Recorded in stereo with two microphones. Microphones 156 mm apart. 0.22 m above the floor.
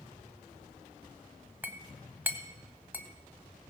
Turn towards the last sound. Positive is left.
turn(degrees=-10)  # may be behind; listen again after turning